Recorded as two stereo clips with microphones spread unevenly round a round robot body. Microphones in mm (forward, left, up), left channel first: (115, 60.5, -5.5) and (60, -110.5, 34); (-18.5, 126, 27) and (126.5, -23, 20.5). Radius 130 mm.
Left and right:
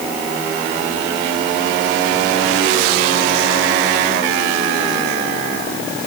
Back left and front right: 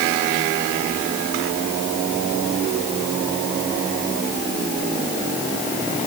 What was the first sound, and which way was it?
Only background noise.